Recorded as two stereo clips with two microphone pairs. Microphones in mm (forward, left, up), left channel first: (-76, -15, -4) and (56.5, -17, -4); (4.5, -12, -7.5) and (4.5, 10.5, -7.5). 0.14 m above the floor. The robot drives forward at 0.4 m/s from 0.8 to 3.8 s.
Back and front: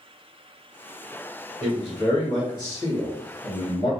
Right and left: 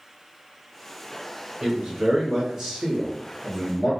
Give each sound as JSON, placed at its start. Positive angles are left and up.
{"t": 1.6, "sound": "a man speaking", "azimuth_deg": 120, "distance_m": 1.5}